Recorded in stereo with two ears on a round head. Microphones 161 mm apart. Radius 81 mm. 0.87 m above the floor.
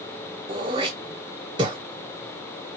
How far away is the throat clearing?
About 0.7 m.